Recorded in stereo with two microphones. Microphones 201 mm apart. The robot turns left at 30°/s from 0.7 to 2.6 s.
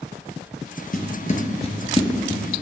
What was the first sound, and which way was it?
Footsteps, 45° left (ahead or behind).